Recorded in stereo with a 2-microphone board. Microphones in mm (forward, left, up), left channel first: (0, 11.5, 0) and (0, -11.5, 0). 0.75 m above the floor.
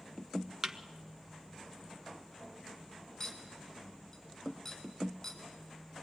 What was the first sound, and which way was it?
A thud, 25° right (ahead or behind).